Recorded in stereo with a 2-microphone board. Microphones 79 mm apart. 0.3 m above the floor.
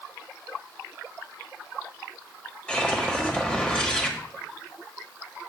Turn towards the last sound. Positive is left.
turn(degrees=15)  # may be behind; listen again after turning